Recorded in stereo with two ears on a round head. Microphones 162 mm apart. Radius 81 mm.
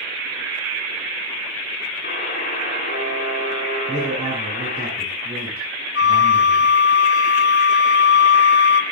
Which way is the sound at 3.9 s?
15° right (ahead or behind).